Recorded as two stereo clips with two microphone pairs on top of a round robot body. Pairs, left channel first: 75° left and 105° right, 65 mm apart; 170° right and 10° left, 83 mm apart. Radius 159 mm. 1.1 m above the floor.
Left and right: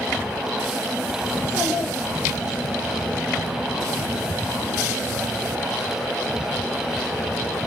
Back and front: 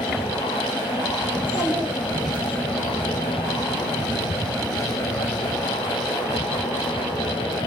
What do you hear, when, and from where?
1.3 s a child speaking: 135° left, 3.5 m